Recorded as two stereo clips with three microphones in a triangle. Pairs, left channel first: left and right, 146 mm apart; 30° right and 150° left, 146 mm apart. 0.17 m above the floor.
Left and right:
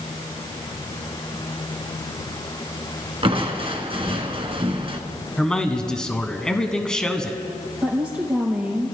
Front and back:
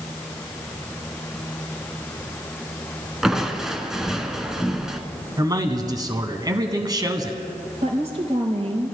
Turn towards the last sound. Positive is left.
turn(degrees=-170)